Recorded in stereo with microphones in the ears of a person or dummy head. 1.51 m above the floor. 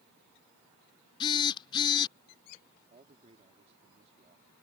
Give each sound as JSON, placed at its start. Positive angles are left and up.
{"t": 1.2, "sound": "a phone buzzing", "side_deg": 25}
{"t": 2.9, "sound": "a man speaking", "side_deg": -35}